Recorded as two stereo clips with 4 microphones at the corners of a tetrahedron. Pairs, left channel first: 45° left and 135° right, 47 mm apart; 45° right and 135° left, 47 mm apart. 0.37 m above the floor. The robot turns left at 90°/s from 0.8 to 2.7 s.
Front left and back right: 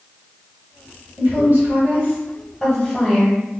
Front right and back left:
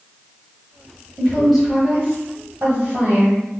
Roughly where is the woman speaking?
Right.